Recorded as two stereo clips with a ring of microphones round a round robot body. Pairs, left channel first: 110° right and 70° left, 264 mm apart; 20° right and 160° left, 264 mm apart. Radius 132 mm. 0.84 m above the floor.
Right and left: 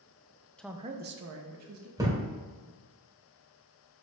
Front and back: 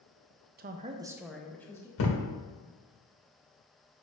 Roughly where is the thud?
Ahead.